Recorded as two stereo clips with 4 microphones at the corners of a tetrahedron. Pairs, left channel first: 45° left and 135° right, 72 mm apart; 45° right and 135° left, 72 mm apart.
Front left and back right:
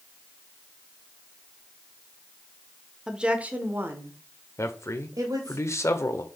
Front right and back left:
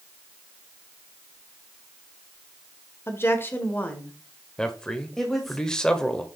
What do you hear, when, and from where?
3.1 s a woman speaking: 60° right, 1.0 m; by 5.6 s 135° right, 1.6 m
4.6 s a man speaking: 30° left, 1.1 m